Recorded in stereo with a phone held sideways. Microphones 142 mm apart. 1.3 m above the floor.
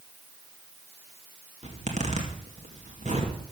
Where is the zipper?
55° right (ahead or behind), 2.5 m.